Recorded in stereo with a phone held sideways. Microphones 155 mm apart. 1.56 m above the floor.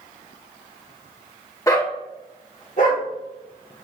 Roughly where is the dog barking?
Left.